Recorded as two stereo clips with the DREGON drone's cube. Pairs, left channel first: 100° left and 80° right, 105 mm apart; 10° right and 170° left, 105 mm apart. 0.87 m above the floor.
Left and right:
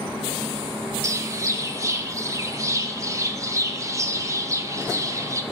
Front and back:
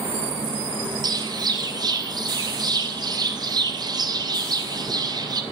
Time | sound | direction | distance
1.0 | a bird | 135° right | 0.7 m